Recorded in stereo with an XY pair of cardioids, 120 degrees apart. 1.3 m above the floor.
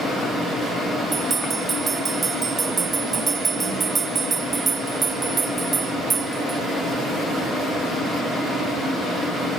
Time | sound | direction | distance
1.1 | a bell | 35° right | ?